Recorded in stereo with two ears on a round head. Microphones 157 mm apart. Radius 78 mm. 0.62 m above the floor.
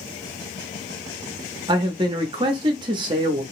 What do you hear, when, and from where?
1.7 s a man speaking: 25° right (ahead or behind), 0.6 m